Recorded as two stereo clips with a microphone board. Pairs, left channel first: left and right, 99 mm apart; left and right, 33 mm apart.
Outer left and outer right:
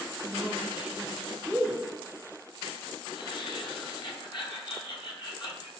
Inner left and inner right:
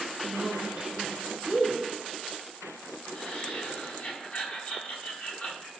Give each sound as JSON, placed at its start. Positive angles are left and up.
{"t": 0.2, "sound": "a woman speaking", "side_deg": -15, "distance_m": 1.4}
{"t": 3.1, "sound": "laughter", "side_deg": 55, "distance_m": 4.5}